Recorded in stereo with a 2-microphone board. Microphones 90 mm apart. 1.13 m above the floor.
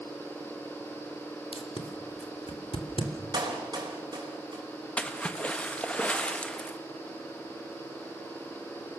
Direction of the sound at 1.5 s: 90° left.